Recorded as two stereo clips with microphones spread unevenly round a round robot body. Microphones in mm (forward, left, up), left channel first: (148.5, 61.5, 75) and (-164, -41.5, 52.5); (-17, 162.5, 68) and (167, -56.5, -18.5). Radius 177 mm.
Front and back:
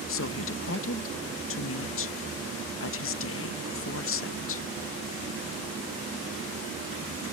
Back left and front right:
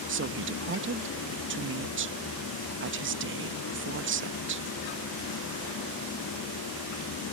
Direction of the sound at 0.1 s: 30° right.